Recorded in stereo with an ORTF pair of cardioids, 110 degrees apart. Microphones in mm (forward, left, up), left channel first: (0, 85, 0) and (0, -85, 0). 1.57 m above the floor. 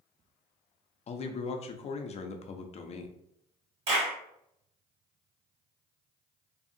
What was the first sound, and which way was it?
A man speaking, 40° left.